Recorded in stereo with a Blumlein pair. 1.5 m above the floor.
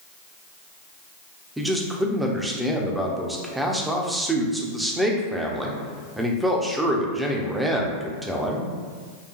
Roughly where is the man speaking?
Ahead.